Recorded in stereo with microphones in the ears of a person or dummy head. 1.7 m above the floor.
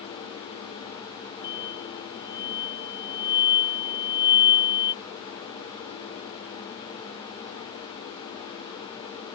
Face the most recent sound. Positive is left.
turn(degrees=15)  # may be behind; listen again after turning